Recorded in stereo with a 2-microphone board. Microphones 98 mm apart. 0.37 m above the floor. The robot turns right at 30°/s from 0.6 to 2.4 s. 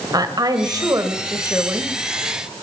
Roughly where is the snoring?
No snoring in this recording.